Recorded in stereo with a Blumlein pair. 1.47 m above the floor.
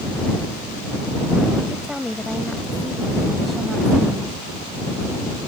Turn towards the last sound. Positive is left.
turn(degrees=-5)